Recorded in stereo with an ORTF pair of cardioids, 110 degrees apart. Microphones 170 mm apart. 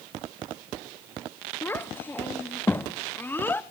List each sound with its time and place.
1.6 s a child speaking: 10° left, 0.9 m